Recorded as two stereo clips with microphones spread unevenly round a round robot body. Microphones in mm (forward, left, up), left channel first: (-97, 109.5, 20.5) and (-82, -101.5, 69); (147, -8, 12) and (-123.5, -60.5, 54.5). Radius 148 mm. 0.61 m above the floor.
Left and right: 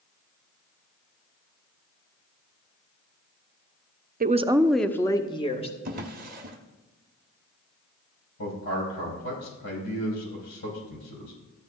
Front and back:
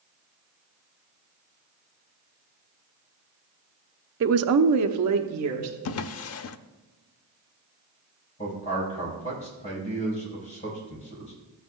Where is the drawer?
30° right, 0.5 m.